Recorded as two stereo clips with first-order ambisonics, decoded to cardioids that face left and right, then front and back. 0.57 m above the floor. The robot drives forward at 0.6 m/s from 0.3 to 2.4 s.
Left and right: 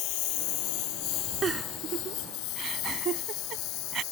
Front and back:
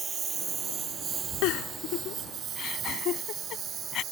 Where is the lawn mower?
110° left; by 4.1 s 120° left.